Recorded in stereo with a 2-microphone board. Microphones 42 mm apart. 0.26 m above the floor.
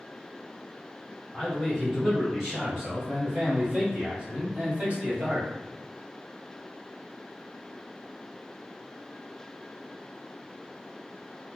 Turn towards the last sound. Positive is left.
turn(degrees=-40)  # may be behind; listen again after turning